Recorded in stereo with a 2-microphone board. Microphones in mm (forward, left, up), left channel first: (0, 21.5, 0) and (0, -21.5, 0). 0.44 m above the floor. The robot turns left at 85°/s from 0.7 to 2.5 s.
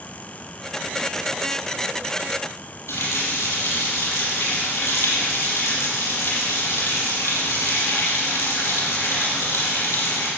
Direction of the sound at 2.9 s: 80° left.